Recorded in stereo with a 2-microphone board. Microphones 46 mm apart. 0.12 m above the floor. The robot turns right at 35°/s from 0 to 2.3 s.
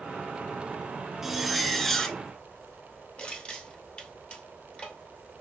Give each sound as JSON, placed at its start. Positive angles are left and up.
{"t": 1.2, "sound": "a zipper", "azimuth_deg": -15, "distance_m": 0.7}
{"t": 3.2, "sound": "crushing", "side_deg": 25, "distance_m": 1.7}